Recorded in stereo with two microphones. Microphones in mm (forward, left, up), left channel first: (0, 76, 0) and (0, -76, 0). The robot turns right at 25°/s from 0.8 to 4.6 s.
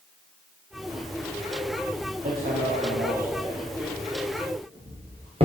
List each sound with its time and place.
2.2 s hammering: 80° right, 6 m; by 5.5 s 40° right (ahead or behind), 6 m